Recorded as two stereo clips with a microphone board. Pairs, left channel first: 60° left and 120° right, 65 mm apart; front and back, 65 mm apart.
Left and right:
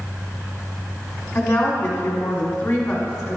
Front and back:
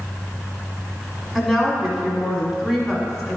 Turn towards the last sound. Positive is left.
turn(degrees=110)